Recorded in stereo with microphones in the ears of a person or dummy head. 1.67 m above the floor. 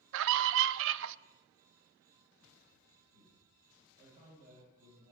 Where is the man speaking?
35° right (ahead or behind), 8 m.